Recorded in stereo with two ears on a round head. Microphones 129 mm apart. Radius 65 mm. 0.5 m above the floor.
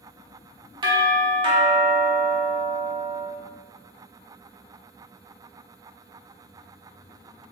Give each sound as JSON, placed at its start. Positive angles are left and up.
{"t": 0.8, "sound": "a doorbell", "side_deg": -35, "distance_m": 1.3}